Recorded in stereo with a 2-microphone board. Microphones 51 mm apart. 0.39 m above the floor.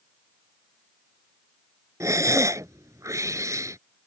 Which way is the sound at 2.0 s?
85° right.